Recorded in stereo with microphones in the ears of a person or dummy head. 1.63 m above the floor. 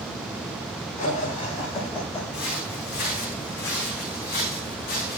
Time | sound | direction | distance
1.0 | laughter | 40° left (ahead or behind) | 7.5 m
2.3 | footsteps | 60° left (ahead or behind) | 7 m